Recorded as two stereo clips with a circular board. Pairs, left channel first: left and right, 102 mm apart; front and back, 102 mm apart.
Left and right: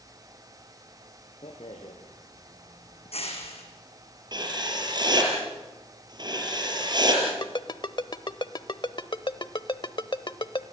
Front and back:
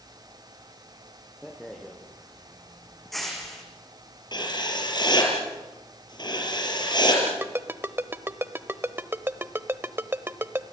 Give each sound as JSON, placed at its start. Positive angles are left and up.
{"t": 1.4, "sound": "a rattle", "azimuth_deg": 90, "distance_m": 5.0}
{"t": 4.3, "sound": "writing", "azimuth_deg": -45, "distance_m": 6.0}
{"t": 7.3, "sound": "a ringtone", "azimuth_deg": 115, "distance_m": 0.9}